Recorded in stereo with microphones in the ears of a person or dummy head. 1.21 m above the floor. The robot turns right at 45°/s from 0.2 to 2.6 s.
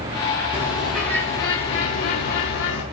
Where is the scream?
I don't hear a scream.